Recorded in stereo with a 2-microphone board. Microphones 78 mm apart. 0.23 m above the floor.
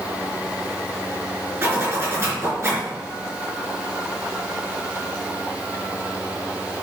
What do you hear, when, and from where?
1.6 s a zipper: 35° right (ahead or behind), 3.5 m